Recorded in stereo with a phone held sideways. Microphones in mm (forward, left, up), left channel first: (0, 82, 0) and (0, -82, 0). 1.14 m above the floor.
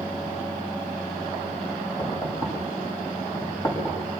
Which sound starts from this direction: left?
Knocking, at 2.0 s.